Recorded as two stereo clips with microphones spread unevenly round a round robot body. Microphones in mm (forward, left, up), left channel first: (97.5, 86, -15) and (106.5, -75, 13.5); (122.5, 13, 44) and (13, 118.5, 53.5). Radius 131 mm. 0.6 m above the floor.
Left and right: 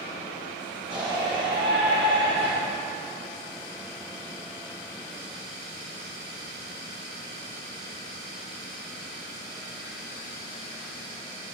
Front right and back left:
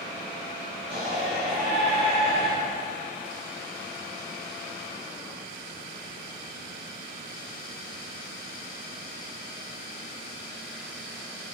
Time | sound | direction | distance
0.9 | a shout | 160° right | 3.5 m